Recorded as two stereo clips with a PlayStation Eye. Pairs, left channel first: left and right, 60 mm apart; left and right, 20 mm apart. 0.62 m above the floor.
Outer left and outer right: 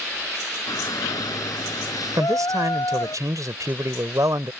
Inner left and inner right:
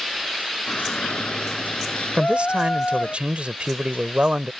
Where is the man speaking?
70° right (ahead or behind).